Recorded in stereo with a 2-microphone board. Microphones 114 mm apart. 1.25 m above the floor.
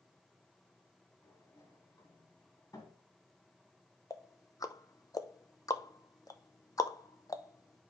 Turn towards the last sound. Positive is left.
turn(degrees=30)  # may be behind; listen again after turning